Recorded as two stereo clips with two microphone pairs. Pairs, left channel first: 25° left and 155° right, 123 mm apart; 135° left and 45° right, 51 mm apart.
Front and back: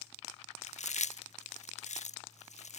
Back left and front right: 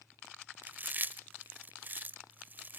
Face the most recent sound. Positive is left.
turn(degrees=10)